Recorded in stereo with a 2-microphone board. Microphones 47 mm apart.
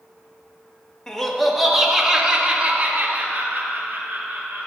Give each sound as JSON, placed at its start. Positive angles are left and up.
{"t": 1.1, "sound": "laughter", "side_deg": 15, "distance_m": 1.9}